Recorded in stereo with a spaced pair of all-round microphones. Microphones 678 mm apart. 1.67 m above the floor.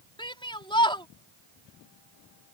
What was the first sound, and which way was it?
A shout, 5° left (ahead or behind).